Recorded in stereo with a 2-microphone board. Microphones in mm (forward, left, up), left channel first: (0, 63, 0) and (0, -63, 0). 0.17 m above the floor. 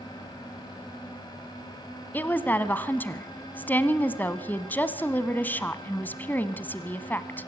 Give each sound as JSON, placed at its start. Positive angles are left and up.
{"t": 2.1, "sound": "a woman speaking", "side_deg": 15, "distance_m": 1.0}